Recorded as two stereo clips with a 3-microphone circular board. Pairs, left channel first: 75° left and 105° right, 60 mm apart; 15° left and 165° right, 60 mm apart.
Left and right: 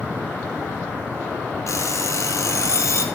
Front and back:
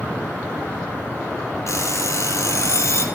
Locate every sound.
1.7 s an alarm clock: 45° left, 2.5 m